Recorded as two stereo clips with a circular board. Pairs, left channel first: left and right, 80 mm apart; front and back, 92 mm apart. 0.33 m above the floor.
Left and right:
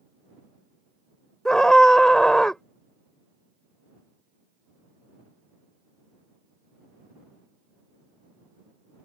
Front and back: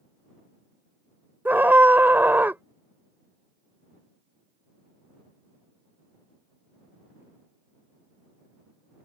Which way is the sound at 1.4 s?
160° left.